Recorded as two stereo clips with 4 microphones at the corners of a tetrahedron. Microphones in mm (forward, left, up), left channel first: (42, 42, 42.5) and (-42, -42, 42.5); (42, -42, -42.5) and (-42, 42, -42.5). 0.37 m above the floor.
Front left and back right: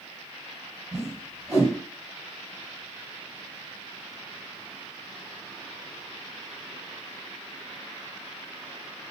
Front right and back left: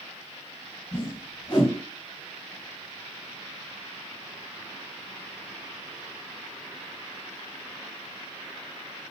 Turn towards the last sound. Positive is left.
turn(degrees=-70)